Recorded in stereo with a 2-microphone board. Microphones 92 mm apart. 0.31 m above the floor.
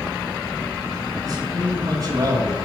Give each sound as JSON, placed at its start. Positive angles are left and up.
{"t": 1.2, "sound": "a man speaking", "side_deg": -35, "distance_m": 2.0}